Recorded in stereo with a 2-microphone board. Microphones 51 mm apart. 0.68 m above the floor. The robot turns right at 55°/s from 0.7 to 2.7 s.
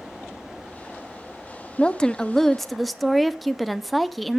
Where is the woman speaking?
20° left (ahead or behind), 0.5 m; by 4.4 s centre (ahead or behind), 0.5 m.